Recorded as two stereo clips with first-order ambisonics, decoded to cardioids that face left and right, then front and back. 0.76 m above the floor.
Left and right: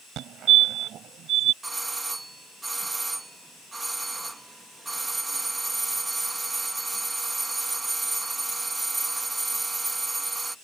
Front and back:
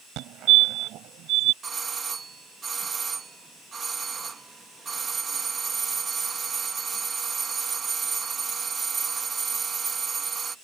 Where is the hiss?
No hiss in this recording.